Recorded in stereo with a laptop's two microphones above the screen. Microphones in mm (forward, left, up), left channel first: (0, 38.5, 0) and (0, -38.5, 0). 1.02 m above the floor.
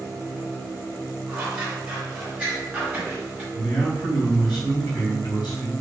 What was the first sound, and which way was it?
Scissors, 20° right (ahead or behind).